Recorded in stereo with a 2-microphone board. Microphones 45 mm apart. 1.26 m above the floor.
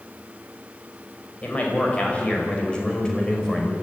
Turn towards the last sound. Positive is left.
turn(degrees=15)  # may be behind; listen again after turning